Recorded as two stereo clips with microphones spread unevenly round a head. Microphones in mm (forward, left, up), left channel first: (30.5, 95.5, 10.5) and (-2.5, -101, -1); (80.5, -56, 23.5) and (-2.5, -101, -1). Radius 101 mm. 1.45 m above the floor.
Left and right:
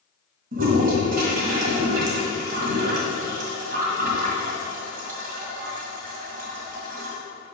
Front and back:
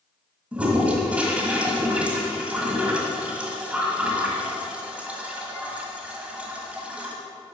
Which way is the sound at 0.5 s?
65° right.